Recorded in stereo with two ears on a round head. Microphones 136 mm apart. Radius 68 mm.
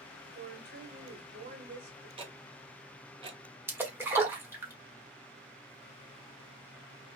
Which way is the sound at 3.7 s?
15° right (ahead or behind).